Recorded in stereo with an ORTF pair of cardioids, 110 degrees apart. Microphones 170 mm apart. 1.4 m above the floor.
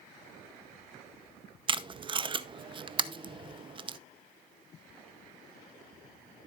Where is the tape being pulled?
30° right, 0.6 m.